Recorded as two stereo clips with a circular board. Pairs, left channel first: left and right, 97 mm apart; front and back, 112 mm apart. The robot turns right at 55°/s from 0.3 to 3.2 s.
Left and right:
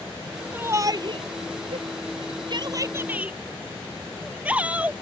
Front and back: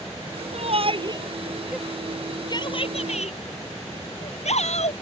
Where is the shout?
160° right; by 4.9 s 15° right.